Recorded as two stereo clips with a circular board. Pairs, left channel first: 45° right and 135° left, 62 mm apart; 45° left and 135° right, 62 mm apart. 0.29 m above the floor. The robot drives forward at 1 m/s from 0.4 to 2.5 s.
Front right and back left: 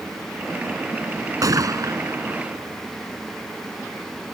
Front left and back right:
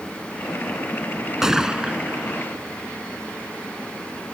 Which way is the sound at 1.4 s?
140° left.